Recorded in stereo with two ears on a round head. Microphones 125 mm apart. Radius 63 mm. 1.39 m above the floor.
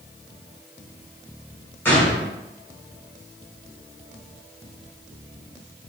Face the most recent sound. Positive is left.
turn(degrees=15)  # may be behind; listen again after turning